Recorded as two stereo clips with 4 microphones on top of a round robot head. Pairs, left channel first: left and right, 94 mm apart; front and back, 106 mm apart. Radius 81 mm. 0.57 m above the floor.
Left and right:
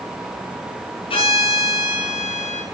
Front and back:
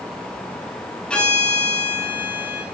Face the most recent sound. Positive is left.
turn(degrees=80)